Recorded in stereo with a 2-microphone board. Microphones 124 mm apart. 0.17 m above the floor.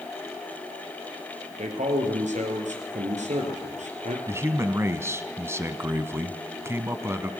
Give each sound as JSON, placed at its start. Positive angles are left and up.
{"t": 1.6, "sound": "a man speaking", "side_deg": -70, "distance_m": 4.0}
{"t": 4.3, "sound": "a man speaking", "side_deg": -20, "distance_m": 1.1}